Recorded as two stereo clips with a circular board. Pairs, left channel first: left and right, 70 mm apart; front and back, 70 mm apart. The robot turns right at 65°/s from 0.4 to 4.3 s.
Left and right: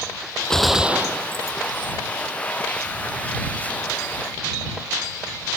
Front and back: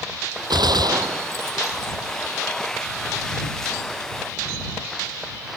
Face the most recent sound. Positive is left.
turn(degrees=60)